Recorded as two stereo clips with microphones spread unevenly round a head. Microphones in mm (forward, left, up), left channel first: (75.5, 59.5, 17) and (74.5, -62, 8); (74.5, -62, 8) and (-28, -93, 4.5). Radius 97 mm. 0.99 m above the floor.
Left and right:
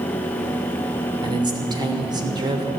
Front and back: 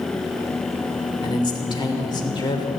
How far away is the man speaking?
About 3 m.